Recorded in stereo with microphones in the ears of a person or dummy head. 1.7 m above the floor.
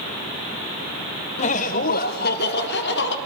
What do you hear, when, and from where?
1.4 s laughter: 40° left (ahead or behind), 1.1 m; by 3.1 s 65° left (ahead or behind), 2.5 m